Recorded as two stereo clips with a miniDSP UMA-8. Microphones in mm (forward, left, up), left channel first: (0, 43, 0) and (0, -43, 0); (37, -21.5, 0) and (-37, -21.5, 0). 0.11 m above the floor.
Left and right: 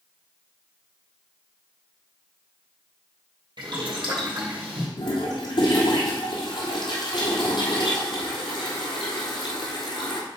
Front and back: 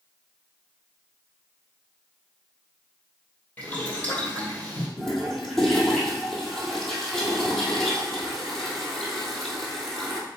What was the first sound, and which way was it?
Boiling, 65° right.